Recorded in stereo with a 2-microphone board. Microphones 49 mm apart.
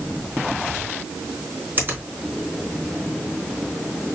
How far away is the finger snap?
About 3 m.